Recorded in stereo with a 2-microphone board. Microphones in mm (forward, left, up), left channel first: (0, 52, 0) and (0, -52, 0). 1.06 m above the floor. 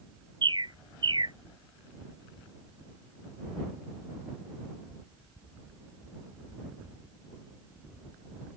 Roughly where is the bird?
Right.